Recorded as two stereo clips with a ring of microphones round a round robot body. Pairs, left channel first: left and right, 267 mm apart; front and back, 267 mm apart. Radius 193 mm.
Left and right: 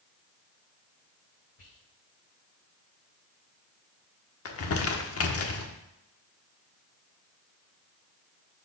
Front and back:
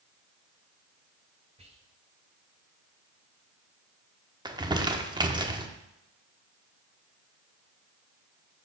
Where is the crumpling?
105° left, 1.1 m.